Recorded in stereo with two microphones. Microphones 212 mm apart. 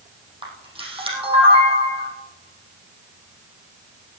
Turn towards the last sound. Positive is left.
turn(degrees=-25)  # may be behind; listen again after turning